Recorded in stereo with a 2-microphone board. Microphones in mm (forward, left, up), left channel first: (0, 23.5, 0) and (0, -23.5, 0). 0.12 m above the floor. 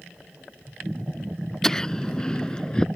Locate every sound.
1.6 s laughter: 10° left (ahead or behind); by 2.9 s 20° left (ahead or behind)